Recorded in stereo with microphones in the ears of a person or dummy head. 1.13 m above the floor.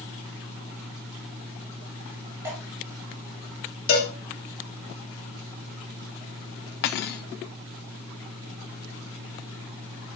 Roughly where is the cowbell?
Left.